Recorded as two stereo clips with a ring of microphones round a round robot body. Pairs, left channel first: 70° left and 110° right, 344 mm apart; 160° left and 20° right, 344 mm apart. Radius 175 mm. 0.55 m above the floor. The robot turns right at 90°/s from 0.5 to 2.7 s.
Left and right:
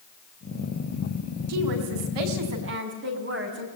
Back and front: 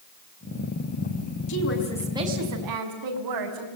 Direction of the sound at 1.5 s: 165° right.